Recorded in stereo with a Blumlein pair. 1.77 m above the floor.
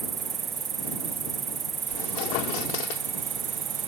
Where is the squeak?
45° left.